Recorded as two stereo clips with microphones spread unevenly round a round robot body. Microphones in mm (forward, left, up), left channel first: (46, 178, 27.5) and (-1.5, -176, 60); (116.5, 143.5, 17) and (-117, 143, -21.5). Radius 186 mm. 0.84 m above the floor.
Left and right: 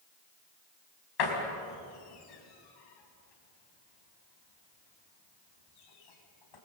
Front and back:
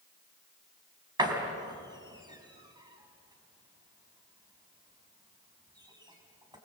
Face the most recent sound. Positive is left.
turn(degrees=105)